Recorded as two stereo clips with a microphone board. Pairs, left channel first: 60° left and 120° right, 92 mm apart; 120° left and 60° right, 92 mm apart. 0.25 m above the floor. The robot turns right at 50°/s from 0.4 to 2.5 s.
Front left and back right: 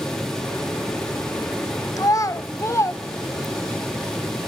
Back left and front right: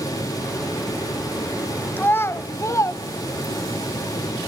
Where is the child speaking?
60° left, 1.0 m; by 3.8 s 90° left, 1.0 m.